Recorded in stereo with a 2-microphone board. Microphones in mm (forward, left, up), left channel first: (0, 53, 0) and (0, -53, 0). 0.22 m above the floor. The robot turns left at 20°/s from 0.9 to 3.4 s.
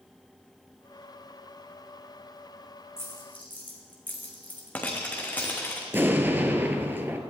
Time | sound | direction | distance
3.0 | a dropped coin | 25° left (ahead or behind) | 1.9 m
5.9 | an explosion | 20° right (ahead or behind) | 0.8 m